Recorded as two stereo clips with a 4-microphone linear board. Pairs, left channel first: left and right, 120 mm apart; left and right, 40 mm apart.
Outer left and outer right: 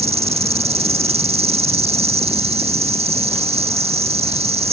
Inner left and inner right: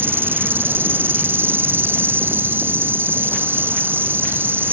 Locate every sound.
0.0 s an insect: 65° right (ahead or behind)